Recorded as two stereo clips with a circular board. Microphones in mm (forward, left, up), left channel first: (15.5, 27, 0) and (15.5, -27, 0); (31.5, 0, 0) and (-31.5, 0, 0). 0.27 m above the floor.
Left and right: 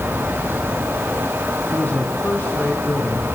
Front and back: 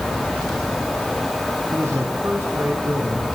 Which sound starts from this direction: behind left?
A man speaking, at 1.7 s.